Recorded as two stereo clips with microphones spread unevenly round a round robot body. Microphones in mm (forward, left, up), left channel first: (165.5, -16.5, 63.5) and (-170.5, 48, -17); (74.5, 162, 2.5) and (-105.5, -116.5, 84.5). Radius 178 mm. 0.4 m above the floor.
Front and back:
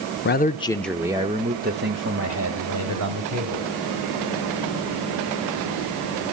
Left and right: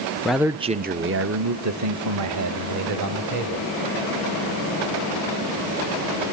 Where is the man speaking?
25° left, 0.8 m; by 3.7 s 160° right, 2.5 m.